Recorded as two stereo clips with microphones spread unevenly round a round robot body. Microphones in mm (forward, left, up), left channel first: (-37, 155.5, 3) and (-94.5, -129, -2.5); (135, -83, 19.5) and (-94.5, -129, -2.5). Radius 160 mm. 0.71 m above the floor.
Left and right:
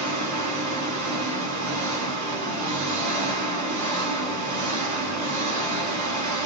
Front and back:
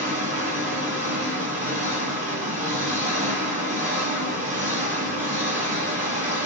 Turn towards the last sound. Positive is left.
turn(degrees=-115)